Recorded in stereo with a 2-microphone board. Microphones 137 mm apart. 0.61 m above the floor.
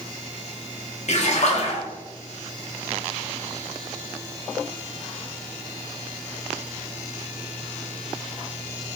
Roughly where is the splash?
Left.